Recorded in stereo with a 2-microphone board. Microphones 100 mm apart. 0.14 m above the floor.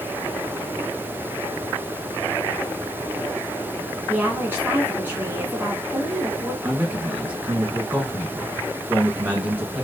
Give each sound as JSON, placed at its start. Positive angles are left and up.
{"t": 4.1, "sound": "a woman speaking", "side_deg": -20, "distance_m": 1.1}
{"t": 6.6, "sound": "a man speaking", "side_deg": -15, "distance_m": 1.1}